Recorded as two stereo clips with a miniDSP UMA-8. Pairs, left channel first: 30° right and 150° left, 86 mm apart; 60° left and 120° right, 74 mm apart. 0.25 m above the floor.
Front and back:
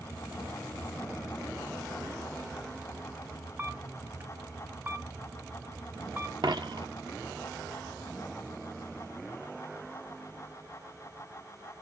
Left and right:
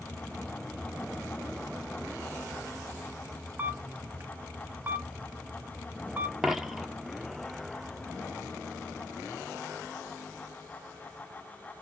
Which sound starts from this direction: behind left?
A dropped coin, at 6.4 s.